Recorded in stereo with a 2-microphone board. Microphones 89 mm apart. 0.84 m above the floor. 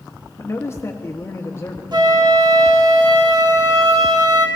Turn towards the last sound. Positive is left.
turn(degrees=-50)  # may be behind; listen again after turning